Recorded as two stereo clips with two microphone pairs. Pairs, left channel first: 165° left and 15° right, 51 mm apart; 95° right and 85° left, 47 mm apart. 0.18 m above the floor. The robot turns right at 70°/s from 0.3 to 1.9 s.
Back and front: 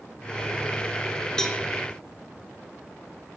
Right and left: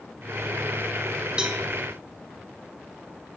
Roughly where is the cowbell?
Behind left.